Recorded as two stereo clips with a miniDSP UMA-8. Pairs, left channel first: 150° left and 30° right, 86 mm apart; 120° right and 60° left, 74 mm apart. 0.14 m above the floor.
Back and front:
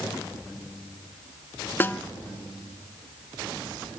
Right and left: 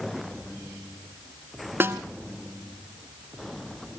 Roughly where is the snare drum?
Left.